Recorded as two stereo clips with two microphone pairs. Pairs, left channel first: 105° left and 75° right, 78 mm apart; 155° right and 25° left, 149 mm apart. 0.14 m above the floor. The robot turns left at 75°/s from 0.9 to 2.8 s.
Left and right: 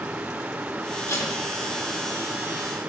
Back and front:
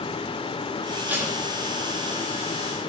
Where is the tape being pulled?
95° left, 1.9 m; by 1.4 s 75° left, 1.9 m.